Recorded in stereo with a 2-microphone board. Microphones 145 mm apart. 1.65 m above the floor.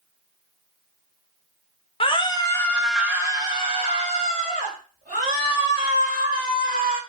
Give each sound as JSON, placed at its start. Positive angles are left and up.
{"t": 2.0, "sound": "a scream", "side_deg": 40, "distance_m": 0.7}